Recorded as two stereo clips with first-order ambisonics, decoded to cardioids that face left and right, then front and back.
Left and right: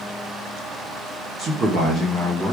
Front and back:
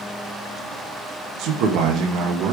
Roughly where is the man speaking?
Behind right.